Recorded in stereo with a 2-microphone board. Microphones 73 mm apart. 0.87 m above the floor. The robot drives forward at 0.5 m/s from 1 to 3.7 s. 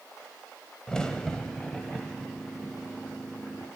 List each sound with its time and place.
0.9 s a crack: 10° left (ahead or behind), 0.7 m; by 3.7 s 5° left (ahead or behind), 1.7 m